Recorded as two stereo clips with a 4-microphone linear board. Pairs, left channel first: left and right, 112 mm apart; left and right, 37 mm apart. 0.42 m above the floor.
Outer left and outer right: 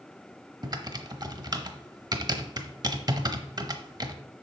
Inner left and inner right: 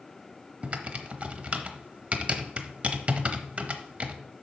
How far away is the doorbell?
No doorbell in this recording.